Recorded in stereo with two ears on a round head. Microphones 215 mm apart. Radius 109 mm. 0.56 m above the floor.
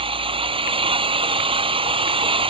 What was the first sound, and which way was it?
An engine running, 25° right (ahead or behind).